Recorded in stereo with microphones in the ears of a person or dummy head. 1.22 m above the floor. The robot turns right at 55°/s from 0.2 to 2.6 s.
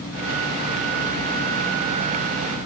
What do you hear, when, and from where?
Only background noise.